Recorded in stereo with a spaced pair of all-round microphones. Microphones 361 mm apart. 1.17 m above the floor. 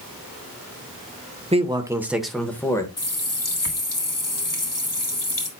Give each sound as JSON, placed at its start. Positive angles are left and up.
{"t": 1.5, "sound": "a man speaking", "side_deg": -15, "distance_m": 0.9}
{"t": 3.0, "sound": "a running tap", "side_deg": 60, "distance_m": 1.6}